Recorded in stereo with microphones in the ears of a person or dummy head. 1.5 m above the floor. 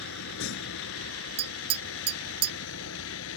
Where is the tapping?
35° right (ahead or behind).